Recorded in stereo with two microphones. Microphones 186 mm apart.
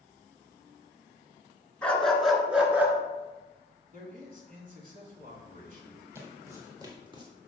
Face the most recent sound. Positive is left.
turn(degrees=-25)  # may be behind; listen again after turning